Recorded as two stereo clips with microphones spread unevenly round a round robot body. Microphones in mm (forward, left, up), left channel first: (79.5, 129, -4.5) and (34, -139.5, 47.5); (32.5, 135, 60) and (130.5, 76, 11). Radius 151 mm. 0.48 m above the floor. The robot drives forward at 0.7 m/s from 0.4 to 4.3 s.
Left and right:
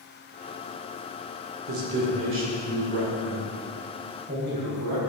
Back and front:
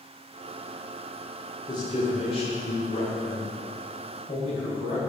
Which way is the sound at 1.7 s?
135° right.